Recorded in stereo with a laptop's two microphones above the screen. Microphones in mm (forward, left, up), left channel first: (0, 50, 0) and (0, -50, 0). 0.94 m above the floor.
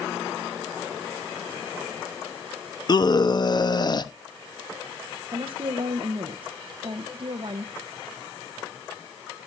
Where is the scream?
40° left (ahead or behind), 0.9 m.